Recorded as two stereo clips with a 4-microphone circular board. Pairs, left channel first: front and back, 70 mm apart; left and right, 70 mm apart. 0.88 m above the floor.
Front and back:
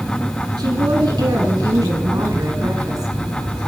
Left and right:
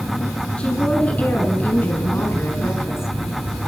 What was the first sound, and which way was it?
A woman speaking, 165° left.